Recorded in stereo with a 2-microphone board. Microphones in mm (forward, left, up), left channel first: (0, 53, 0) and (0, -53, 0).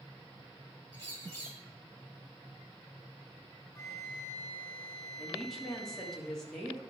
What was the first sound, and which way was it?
A bird, 20° left (ahead or behind).